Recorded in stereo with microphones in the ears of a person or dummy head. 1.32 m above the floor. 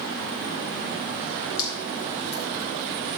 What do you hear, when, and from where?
1.6 s dripping: 50° left (ahead or behind), 4 m